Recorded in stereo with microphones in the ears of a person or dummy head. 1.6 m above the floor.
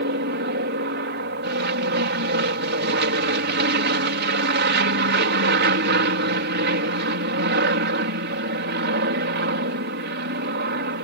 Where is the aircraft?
50° right (ahead or behind).